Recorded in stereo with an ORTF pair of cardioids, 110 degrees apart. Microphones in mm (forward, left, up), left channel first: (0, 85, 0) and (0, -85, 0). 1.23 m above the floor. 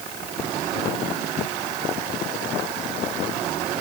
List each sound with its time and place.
Only background noise.